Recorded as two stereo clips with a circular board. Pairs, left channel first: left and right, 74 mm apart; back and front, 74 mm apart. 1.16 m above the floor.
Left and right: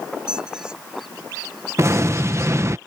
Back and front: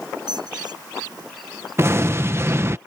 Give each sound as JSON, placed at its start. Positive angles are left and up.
{"t": 0.3, "sound": "a squeak", "azimuth_deg": -10}
{"t": 1.8, "sound": "an explosion", "azimuth_deg": -45}